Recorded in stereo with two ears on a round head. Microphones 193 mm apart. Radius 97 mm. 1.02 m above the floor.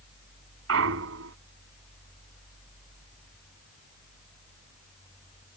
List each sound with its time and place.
0.7 s a clunk: 70° right (ahead or behind)